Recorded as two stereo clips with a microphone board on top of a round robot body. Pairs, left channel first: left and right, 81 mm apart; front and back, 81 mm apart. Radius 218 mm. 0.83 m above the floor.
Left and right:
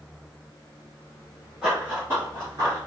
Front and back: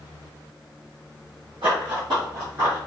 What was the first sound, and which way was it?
Running footsteps, 170° right.